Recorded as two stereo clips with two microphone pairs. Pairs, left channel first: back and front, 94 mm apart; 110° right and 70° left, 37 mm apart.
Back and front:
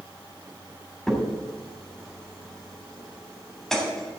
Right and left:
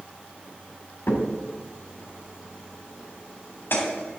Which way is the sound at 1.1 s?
95° right.